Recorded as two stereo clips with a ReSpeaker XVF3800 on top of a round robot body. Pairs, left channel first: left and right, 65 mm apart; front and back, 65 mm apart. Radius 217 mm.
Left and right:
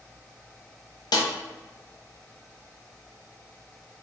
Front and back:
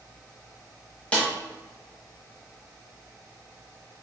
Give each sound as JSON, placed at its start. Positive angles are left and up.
{"t": 1.1, "sound": "a snare drum", "azimuth_deg": 70, "distance_m": 0.9}